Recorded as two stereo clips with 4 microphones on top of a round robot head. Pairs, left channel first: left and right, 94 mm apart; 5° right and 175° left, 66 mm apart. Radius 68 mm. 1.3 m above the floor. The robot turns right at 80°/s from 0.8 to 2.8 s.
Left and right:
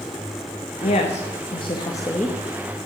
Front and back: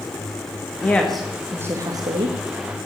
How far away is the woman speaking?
About 1.9 m.